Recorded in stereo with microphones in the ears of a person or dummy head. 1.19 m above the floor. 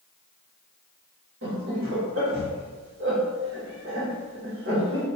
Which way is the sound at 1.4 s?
65° right (ahead or behind).